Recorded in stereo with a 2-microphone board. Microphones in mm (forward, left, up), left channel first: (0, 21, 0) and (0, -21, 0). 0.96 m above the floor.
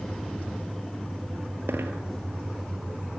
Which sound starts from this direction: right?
A dropped coin, at 1.7 s.